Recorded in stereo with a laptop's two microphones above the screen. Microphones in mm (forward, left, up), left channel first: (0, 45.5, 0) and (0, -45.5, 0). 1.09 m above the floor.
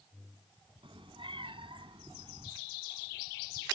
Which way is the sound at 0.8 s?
70° right (ahead or behind).